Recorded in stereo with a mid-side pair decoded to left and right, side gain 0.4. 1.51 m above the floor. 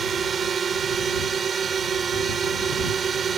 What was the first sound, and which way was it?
A drone, 50° right.